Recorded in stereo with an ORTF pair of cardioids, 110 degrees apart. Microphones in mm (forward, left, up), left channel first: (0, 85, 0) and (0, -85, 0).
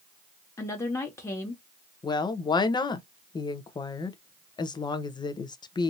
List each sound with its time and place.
0.6 s a woman speaking: 15° left, 1.5 m
2.0 s a woman speaking: 25° left, 0.8 m